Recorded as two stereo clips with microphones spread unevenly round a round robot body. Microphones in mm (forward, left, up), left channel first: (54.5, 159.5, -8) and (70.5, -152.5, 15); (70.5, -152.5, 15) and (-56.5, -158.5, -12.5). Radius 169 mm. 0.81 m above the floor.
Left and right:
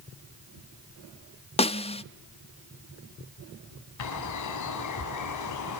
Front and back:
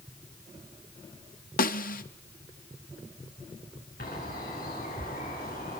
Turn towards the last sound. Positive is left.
turn(degrees=65)